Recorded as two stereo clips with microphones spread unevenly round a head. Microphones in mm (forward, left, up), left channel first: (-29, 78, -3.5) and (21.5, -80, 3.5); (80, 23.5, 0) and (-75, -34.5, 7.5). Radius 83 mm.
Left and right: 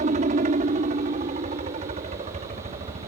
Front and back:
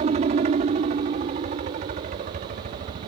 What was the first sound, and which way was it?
A helicopter, 115° right.